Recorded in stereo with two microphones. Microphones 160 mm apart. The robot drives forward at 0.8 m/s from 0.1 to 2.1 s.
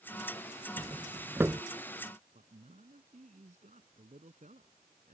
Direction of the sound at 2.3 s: 50° right (ahead or behind).